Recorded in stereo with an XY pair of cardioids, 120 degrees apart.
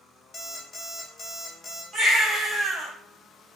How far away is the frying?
No frying in this recording.